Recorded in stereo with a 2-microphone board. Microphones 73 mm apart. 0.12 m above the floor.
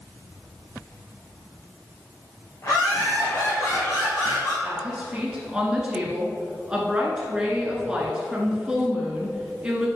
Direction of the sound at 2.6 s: 45° left (ahead or behind).